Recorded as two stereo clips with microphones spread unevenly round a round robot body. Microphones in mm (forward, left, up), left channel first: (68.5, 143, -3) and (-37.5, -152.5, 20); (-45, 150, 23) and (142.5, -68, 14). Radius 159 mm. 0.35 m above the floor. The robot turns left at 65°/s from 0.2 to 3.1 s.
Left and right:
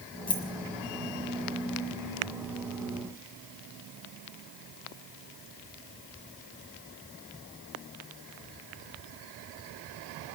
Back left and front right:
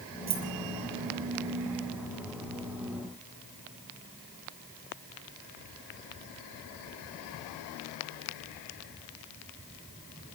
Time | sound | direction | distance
0.3 | keys jangling | 5° right | 6.5 m